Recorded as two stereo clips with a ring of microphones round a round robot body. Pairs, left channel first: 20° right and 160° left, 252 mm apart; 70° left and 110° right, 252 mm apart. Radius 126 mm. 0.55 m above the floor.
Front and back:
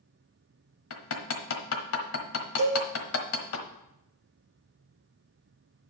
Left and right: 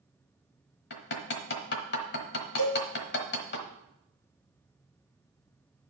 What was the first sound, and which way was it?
Hammering, 15° left.